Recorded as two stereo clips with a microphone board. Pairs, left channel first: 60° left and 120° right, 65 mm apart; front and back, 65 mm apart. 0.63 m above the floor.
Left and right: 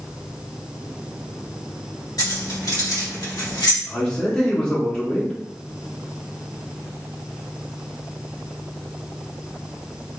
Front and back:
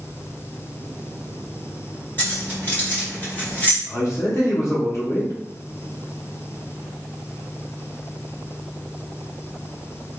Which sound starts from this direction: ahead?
A man speaking, at 3.9 s.